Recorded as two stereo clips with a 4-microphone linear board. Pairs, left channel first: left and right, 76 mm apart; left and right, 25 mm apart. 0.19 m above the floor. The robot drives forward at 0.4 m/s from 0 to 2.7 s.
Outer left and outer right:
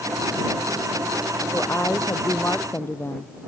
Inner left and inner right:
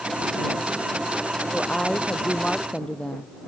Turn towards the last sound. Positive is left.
turn(degrees=35)  # may be behind; listen again after turning